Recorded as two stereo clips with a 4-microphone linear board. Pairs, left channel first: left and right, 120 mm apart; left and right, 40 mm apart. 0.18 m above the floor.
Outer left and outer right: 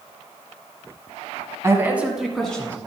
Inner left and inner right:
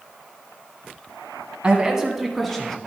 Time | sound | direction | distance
1.6 | a man speaking | 25° right (ahead or behind) | 1.5 m